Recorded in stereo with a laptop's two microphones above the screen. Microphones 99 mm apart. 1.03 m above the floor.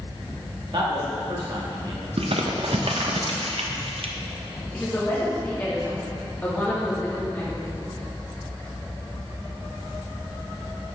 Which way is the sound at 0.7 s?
55° right (ahead or behind).